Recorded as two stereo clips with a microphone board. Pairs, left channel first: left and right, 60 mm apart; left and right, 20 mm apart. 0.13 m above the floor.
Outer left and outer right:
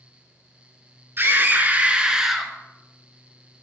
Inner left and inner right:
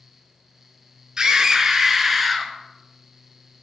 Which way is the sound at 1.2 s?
40° right (ahead or behind).